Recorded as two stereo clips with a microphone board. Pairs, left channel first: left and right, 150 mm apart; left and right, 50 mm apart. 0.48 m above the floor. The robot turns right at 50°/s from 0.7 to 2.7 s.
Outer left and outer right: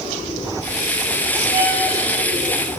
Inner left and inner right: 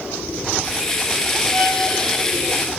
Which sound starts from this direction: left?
A violin, at 1.5 s.